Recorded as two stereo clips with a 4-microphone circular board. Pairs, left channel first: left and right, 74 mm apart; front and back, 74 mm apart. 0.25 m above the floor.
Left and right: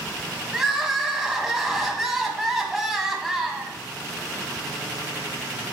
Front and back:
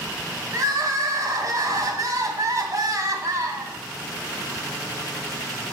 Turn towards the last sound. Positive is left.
turn(degrees=-175)